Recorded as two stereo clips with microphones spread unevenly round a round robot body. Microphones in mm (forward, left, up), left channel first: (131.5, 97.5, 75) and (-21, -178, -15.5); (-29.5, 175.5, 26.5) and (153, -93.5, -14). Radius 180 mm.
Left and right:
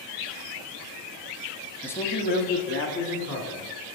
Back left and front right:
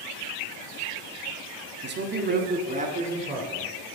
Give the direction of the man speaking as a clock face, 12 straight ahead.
2 o'clock.